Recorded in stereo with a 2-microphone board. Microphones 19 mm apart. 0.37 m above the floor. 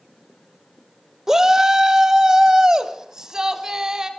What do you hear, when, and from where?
1.3 s a shout: 20° right (ahead or behind), 0.8 m; by 4.1 s 25° right (ahead or behind), 3 m